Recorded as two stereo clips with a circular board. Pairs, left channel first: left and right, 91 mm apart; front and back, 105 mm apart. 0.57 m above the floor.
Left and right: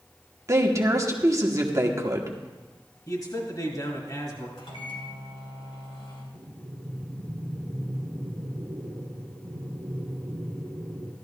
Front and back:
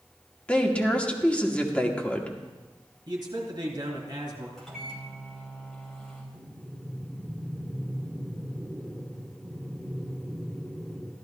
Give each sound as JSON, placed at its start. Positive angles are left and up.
{"t": 0.5, "sound": "a woman speaking", "azimuth_deg": -70, "distance_m": 1.2}
{"t": 3.1, "sound": "a man speaking", "azimuth_deg": 135, "distance_m": 3.0}
{"t": 4.6, "sound": "a microwave", "azimuth_deg": 85, "distance_m": 3.0}
{"t": 6.3, "sound": "breathing", "azimuth_deg": -95, "distance_m": 1.3}